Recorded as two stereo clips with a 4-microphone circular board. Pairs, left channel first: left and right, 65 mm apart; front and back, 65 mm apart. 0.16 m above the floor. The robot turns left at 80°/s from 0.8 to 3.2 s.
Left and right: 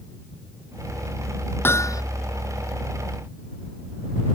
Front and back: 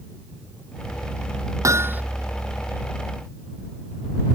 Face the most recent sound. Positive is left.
turn(degrees=20)